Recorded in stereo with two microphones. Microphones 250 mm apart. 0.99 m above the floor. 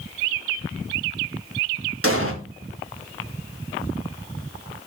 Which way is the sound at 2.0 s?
65° right (ahead or behind).